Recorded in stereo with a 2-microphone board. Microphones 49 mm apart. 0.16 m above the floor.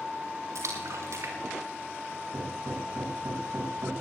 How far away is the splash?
About 5 m.